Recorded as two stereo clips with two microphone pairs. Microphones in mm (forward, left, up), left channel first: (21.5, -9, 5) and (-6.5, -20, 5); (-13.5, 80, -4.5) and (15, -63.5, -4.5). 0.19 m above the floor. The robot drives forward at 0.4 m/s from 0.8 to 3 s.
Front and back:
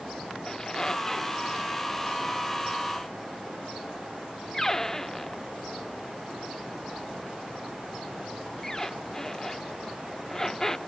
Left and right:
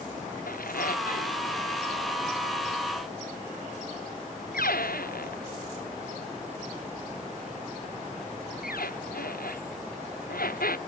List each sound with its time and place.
0.5 s a squeak: 90° left; by 10.8 s 95° left